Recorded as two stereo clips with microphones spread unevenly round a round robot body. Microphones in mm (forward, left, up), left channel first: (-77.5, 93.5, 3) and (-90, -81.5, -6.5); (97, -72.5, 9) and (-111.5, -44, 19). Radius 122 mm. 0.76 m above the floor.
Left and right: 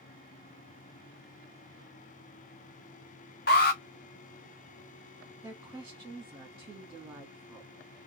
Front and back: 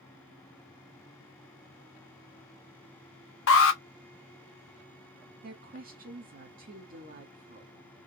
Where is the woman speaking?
155° right, 1.2 m.